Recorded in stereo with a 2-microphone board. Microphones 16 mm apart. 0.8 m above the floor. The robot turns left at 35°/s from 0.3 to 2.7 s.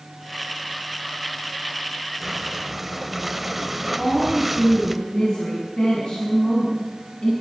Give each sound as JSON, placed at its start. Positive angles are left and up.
{"t": 2.2, "sound": "breathing", "side_deg": -25, "distance_m": 1.3}
{"t": 4.0, "sound": "a woman speaking", "side_deg": 70, "distance_m": 7.5}